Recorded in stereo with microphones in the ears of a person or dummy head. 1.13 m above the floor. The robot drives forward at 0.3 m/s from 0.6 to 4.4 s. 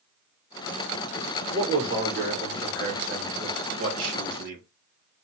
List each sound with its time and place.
1.5 s a man speaking: 45° right (ahead or behind), 1.4 m; by 4.6 s 60° right (ahead or behind), 1.2 m